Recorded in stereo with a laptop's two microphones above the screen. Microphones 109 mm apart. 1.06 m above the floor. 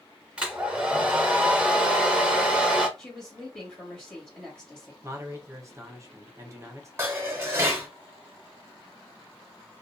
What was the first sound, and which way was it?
A hair dryer, 10° right (ahead or behind).